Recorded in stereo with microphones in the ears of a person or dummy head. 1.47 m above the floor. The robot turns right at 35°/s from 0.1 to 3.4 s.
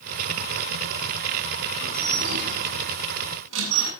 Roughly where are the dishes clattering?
Right.